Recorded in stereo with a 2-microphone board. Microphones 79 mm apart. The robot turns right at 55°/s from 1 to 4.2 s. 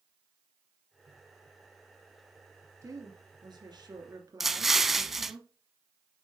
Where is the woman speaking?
130° right, 2.5 m; by 5.4 s 55° right, 2.5 m.